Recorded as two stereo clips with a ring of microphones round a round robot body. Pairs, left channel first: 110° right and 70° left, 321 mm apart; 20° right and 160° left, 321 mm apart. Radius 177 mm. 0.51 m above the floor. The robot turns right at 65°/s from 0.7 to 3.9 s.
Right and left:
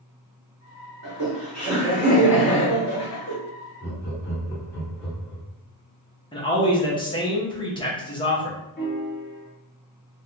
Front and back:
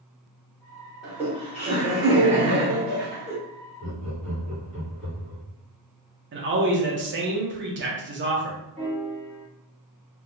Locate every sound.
1.0 s laughter: 65° left, 1.8 m; by 3.4 s 145° right, 1.8 m
3.8 s laughter: 155° right, 1.6 m; by 5.5 s 150° right, 1.6 m
6.3 s a man speaking: straight behind, 0.9 m
8.8 s a piano: 145° right, 1.4 m